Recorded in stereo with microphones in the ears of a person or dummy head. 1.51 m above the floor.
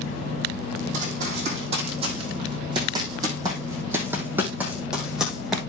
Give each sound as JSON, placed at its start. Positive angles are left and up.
{"t": 0.9, "sound": "running footsteps", "side_deg": -40, "distance_m": 3.5}